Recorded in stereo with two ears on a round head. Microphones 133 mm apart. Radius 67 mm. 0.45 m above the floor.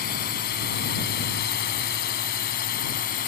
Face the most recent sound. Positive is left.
turn(degrees=65)  # may be behind; listen again after turning